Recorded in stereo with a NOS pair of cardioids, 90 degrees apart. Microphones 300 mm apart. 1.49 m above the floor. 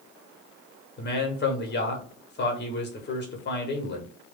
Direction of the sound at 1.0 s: 35° left.